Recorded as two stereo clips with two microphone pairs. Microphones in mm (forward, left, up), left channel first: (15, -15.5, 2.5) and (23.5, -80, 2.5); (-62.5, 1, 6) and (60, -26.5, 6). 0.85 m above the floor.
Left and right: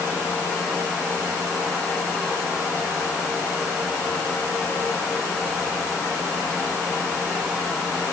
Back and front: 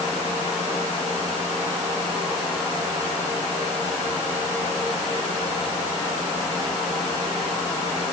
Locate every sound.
Only background noise.